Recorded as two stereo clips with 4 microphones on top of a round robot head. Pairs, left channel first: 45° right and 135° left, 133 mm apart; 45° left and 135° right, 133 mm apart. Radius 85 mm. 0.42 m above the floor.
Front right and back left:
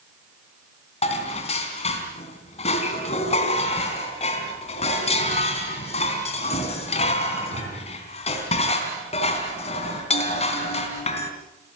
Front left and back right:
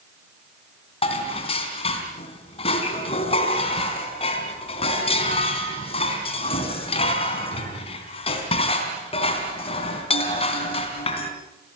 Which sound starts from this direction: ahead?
Dishes clattering, at 1.0 s.